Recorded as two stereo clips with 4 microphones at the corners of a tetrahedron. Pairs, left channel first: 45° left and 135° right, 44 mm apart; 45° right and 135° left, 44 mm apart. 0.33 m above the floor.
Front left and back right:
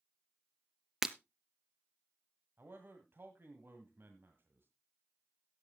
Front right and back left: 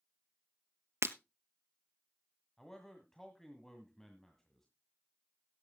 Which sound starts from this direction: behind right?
A man speaking, at 2.6 s.